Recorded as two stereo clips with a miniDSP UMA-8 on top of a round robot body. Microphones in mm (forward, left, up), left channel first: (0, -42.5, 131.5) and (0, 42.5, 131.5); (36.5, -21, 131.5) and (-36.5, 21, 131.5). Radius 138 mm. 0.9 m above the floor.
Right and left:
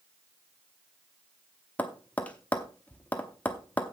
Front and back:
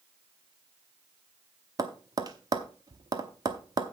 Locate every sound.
1.8 s tapping: 165° right, 0.8 m